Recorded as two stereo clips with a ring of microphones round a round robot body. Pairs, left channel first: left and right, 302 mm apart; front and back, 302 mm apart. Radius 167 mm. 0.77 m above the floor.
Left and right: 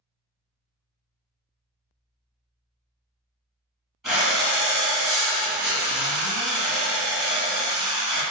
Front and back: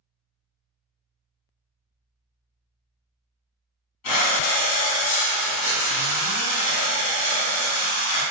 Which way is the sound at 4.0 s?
Straight ahead.